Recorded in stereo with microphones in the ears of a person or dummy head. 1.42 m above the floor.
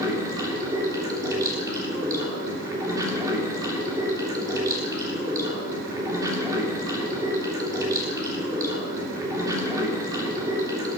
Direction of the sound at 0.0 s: 20° right (ahead or behind).